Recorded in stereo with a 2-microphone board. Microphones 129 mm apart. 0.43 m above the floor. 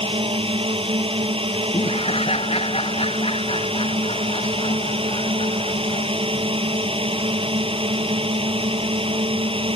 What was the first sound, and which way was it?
A drone, 45° right (ahead or behind).